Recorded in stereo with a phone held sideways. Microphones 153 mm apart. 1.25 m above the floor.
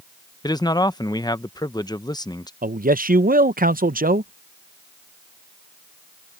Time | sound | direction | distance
0.4 | a man speaking | 25° left (ahead or behind) | ?
2.6 | a man speaking | 65° right (ahead or behind) | ?